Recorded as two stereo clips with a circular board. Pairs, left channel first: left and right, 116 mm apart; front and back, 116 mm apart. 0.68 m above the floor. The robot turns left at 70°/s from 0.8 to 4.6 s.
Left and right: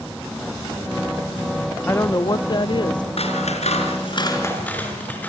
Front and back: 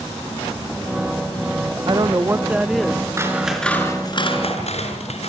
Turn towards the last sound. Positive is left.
turn(degrees=15)